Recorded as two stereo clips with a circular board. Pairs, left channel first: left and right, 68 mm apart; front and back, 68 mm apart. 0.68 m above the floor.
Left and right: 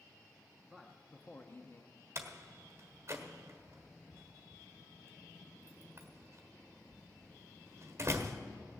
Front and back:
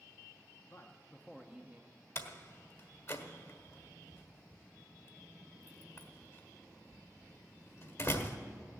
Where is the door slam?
40° right, 1.4 m.